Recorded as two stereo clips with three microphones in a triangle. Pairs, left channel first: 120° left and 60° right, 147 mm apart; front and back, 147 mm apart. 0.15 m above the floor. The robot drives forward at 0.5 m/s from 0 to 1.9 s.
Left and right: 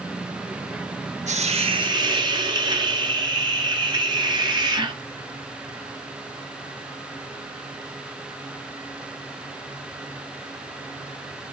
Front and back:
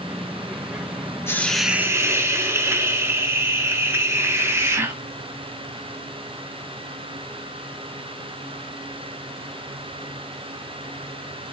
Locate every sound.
1.3 s a hiss: 70° right, 0.6 m; by 5.0 s 110° right, 0.6 m